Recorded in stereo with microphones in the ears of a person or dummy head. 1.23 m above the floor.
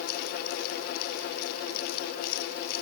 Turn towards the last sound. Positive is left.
No sound to turn to.